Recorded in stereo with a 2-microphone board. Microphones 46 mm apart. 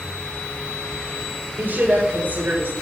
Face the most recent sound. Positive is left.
turn(degrees=-40)  # may be behind; listen again after turning